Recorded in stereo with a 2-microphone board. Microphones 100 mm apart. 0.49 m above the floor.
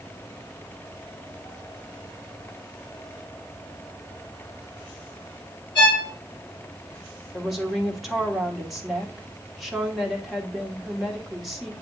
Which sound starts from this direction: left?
A violin, at 5.8 s.